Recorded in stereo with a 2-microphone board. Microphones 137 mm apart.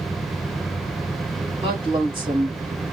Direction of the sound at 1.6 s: 45° right (ahead or behind).